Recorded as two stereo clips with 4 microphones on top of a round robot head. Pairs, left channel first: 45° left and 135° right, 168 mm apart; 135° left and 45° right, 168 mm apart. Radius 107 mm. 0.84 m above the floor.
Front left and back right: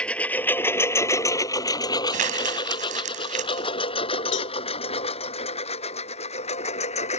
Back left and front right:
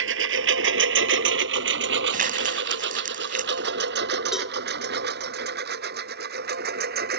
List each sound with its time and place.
0.0 s a lawn mower: 40° right; by 7.2 s 10° right
2.1 s crumpling: 85° right
4.3 s a cowbell: 45° left